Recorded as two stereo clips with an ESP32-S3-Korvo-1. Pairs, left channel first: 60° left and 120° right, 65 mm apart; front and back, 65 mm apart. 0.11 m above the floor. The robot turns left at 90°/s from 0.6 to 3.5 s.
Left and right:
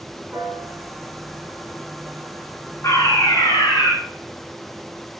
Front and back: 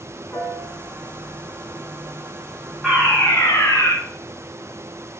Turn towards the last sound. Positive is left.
turn(degrees=40)